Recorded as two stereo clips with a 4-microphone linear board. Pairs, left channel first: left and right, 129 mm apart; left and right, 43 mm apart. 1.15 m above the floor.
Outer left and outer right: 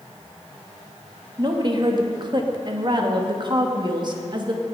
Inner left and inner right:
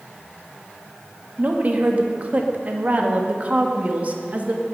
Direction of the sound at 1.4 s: 35° right (ahead or behind).